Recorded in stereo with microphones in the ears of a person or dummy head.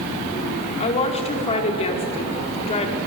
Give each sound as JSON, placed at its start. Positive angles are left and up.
{"t": 0.8, "sound": "a woman speaking", "side_deg": 35, "distance_m": 4.5}